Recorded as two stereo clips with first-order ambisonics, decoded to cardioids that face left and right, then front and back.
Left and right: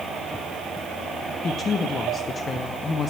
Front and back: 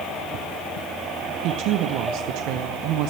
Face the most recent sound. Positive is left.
turn(degrees=160)